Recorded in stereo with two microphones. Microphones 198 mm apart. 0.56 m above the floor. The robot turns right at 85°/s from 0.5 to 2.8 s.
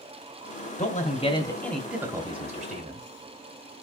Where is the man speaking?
95° left, 0.9 m; by 3.0 s 95° right, 0.9 m.